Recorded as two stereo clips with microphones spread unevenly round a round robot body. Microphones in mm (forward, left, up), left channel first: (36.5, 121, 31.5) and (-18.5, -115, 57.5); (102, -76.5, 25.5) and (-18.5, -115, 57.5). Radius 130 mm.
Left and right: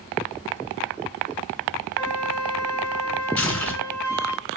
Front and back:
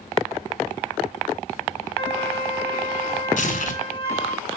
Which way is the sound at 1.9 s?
55° right.